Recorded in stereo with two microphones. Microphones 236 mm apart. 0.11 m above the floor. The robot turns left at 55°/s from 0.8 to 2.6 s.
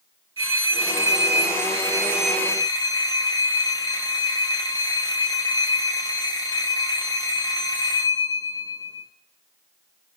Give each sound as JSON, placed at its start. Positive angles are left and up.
{"t": 0.4, "sound": "a phone ringing", "azimuth_deg": -100, "distance_m": 1.9}